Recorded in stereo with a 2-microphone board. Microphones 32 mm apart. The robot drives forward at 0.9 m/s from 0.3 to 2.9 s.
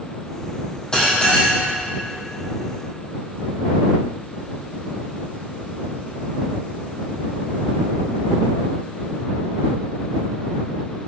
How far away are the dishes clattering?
About 3.5 m.